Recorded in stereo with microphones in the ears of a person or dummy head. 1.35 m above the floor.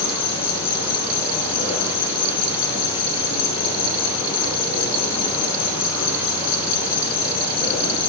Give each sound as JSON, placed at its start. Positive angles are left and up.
{"t": 0.0, "sound": "an insect", "side_deg": 30, "distance_m": 8.0}